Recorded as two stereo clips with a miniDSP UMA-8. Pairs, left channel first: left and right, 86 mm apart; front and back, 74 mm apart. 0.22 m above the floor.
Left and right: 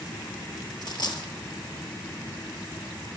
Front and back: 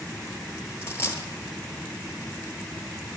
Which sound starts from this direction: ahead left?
A dropped coin, at 0.8 s.